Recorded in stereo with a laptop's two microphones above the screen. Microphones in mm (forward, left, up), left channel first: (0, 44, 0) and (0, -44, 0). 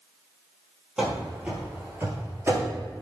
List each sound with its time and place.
1.0 s running footsteps: 5° right (ahead or behind), 1.3 m; by 2.8 s 30° right (ahead or behind), 1.3 m